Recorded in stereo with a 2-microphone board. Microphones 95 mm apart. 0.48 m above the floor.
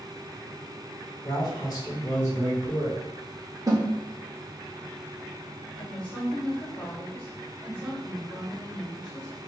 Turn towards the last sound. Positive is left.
turn(degrees=55)  # may be behind; listen again after turning